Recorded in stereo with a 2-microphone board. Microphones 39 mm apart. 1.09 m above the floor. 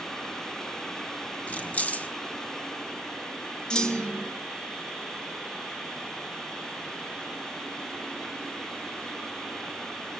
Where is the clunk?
20° left (ahead or behind), 1.4 m.